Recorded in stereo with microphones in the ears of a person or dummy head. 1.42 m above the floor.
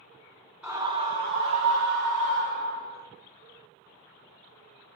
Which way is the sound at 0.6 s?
5° right (ahead or behind).